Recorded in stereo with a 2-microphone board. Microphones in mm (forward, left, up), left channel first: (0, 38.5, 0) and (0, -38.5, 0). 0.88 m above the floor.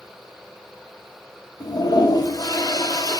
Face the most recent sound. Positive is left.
turn(degrees=55)  # may be behind; listen again after turning